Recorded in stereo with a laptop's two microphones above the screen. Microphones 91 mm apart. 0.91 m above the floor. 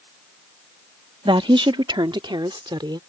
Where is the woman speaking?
65° right (ahead or behind); by 3.0 s 60° right (ahead or behind).